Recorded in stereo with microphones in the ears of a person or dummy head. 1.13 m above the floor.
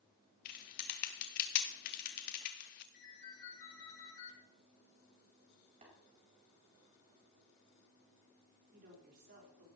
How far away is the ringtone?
About 6 m.